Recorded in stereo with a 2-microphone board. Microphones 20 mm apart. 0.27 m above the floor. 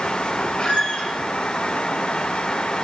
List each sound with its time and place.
0.6 s a squeak: 65° left (ahead or behind), 1.8 m